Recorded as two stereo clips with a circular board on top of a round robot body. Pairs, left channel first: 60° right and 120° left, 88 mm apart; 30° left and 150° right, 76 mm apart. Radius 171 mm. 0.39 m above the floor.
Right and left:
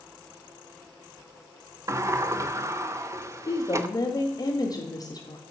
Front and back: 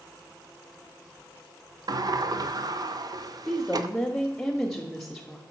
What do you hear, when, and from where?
1.9 s a sliding door: 175° left, 0.6 m
3.5 s a woman speaking: 55° right, 1.3 m